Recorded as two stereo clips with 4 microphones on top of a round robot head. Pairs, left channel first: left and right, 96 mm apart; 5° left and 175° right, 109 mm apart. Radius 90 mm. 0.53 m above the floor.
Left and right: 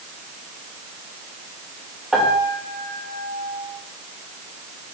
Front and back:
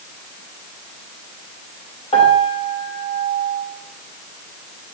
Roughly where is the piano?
Ahead.